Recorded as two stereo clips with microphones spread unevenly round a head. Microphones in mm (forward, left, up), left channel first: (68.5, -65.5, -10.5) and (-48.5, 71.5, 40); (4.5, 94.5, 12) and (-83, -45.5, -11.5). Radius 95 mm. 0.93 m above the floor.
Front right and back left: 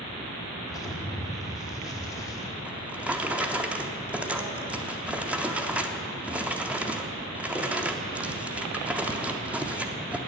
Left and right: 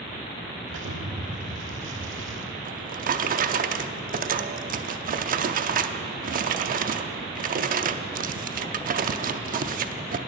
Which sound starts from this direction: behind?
A drawer, at 2.6 s.